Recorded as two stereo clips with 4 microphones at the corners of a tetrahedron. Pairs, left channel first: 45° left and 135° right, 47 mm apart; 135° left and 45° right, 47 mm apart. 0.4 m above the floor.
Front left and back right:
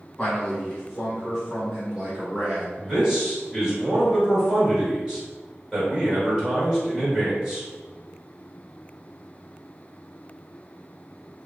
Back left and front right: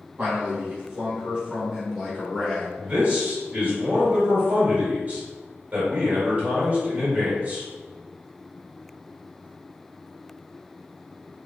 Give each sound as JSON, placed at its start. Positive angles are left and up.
{"t": 0.2, "sound": "a man speaking", "azimuth_deg": -15, "distance_m": 1.9}
{"t": 2.8, "sound": "a man speaking", "azimuth_deg": -65, "distance_m": 1.6}